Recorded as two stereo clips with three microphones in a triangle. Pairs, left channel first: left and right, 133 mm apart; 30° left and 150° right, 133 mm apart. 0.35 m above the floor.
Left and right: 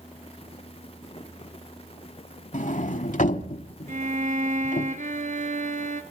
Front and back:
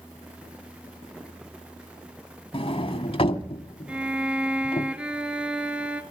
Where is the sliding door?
75° left, 1.0 m.